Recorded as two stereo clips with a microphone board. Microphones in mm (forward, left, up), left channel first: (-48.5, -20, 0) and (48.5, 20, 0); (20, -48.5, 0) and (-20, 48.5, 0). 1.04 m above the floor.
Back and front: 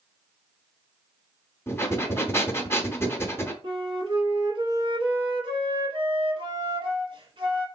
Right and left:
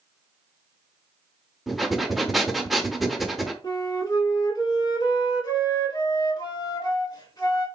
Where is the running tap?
I don't hear a running tap.